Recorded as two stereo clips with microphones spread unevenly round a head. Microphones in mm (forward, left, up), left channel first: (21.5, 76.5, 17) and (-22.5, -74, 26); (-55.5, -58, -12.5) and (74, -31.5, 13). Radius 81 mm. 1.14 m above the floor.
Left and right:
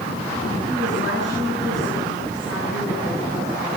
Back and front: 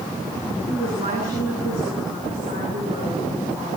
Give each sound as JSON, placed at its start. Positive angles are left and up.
{"t": 0.7, "sound": "a woman speaking", "azimuth_deg": 70, "distance_m": 8.5}